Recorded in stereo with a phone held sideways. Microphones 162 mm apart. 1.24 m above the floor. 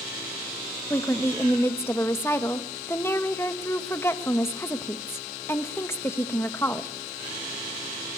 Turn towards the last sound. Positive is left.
turn(degrees=15)  # may be behind; listen again after turning